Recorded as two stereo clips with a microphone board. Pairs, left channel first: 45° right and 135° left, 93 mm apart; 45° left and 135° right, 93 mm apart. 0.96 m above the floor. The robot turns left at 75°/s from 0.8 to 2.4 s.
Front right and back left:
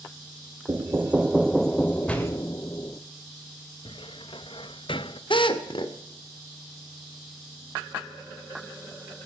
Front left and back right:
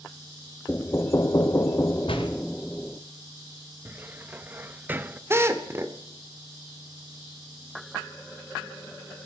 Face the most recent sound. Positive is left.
turn(degrees=-70)